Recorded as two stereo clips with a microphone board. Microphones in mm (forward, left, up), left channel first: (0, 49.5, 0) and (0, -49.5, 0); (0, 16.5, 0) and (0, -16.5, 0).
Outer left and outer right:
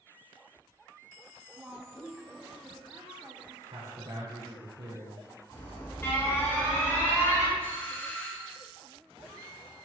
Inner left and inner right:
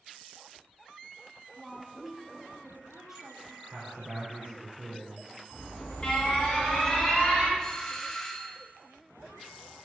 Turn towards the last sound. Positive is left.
turn(degrees=20)  # may be behind; listen again after turning